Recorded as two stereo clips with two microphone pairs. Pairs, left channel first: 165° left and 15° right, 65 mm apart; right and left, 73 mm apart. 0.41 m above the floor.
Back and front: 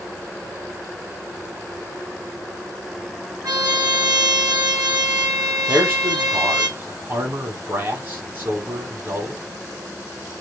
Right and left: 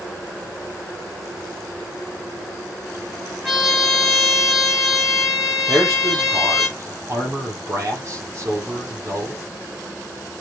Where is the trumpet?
Straight ahead, 7.5 m.